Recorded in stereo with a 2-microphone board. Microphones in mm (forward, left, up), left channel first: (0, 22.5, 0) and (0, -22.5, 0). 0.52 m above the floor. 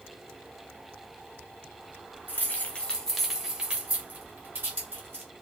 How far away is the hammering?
I don't hear hammering.